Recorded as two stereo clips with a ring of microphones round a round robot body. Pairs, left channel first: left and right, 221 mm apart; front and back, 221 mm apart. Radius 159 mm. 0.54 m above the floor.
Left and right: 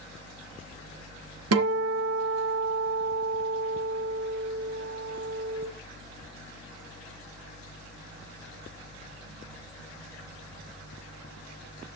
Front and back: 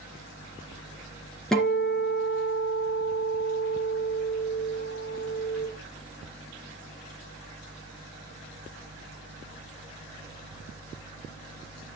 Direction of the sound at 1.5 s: 90° right.